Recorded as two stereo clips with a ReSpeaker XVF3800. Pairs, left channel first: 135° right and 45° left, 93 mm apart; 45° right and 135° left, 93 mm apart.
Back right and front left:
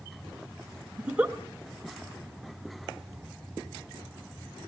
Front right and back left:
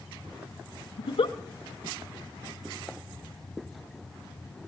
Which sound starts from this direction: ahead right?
A giggle, at 1.0 s.